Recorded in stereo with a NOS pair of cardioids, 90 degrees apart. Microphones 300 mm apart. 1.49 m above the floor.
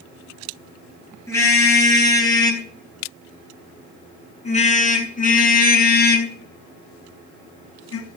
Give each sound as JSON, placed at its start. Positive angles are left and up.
{"t": 1.3, "sound": "a car horn", "azimuth_deg": 10, "distance_m": 10.0}